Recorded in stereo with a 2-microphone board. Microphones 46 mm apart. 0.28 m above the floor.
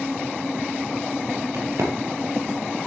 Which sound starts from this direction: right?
A crack, at 1.5 s.